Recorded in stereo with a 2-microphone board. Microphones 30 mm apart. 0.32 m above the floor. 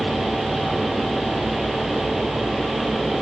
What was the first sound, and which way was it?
Only background noise.